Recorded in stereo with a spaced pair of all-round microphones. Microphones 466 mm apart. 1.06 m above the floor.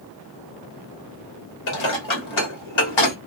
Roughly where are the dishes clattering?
Left.